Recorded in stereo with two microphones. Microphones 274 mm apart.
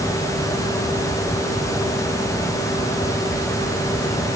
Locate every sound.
Only background noise.